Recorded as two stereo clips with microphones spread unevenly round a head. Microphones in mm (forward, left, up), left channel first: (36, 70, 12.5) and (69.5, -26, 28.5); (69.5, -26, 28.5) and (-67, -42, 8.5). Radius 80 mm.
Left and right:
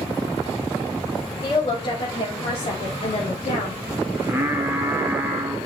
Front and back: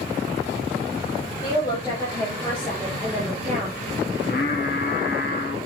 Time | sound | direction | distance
1.4 | a woman speaking | 75° left | 3.5 m
4.1 | singing | straight ahead | 2 m